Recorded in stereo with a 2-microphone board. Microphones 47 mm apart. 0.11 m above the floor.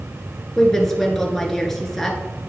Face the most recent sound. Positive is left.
turn(degrees=5)  # may be behind; listen again after turning